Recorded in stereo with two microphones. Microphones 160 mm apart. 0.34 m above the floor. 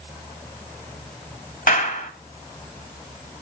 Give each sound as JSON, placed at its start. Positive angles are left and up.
{"t": 1.7, "sound": "a clap", "side_deg": 60, "distance_m": 1.6}